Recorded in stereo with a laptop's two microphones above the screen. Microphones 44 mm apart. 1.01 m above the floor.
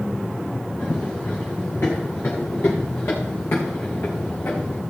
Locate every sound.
0.8 s running footsteps: 50° left (ahead or behind), 5.5 m; by 4.8 s 75° left (ahead or behind), 4 m